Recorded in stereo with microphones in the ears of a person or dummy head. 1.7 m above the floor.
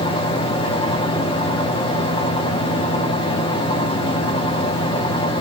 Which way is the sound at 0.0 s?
20° left (ahead or behind).